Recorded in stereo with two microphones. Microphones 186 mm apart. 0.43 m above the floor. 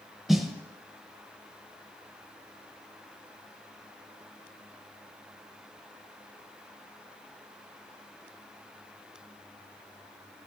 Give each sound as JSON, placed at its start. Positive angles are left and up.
{"t": 0.3, "sound": "a snare drum", "side_deg": 0, "distance_m": 0.6}